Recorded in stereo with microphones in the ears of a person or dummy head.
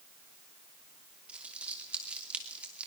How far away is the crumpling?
About 2.5 m.